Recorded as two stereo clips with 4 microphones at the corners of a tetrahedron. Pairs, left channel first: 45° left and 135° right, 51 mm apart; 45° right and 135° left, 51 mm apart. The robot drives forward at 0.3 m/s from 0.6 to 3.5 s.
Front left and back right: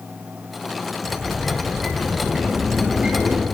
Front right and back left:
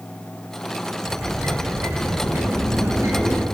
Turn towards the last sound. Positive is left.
turn(degrees=155)